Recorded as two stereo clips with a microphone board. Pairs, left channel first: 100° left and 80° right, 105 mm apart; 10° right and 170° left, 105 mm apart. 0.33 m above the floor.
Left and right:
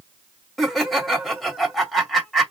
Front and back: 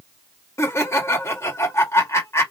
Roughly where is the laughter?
Ahead.